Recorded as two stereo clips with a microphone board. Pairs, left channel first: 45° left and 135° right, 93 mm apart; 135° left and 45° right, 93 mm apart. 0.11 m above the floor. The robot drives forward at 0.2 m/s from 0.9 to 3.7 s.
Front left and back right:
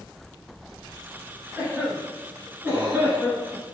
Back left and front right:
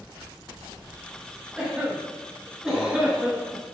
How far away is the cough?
About 1.4 m.